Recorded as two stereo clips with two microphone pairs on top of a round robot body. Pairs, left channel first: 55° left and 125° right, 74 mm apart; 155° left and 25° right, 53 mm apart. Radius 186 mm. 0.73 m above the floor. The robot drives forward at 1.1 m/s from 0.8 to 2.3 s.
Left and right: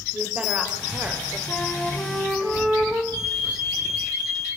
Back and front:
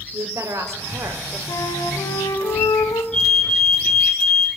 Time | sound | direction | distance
0.1 | a woman speaking | 50° right | 3.5 m
1.5 | a flute | 135° left | 2.5 m
3.1 | a fire alarm | 135° right | 7.5 m